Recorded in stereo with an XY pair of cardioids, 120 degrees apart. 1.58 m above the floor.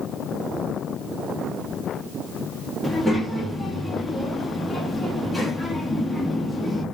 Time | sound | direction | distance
2.8 | a child speaking | 5° left | 1.2 m